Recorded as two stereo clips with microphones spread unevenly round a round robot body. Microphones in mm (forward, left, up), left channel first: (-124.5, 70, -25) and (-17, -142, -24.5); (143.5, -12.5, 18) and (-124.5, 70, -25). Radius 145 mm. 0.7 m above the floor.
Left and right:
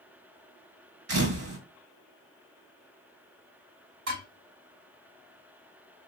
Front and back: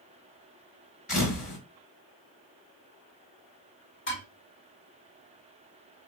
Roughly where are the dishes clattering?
Right.